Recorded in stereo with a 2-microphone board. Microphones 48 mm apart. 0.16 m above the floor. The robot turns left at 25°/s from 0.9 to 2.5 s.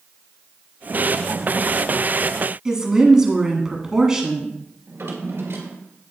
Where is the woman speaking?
15° right (ahead or behind), 1.2 m.